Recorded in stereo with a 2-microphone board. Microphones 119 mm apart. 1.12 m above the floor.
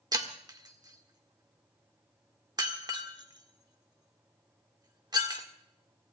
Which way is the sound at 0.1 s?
35° right (ahead or behind).